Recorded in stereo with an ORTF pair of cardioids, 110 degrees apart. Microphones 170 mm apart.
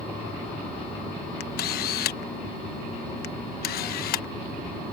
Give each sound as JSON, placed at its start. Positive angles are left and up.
{"t": 1.4, "sound": "a camera shutter", "azimuth_deg": 65}